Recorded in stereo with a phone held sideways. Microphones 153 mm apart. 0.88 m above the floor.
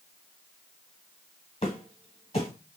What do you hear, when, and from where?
1.6 s footsteps: 40° left (ahead or behind), 1.1 m